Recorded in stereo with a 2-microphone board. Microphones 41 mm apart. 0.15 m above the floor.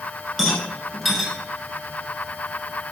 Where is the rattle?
5° right (ahead or behind), 1.0 m.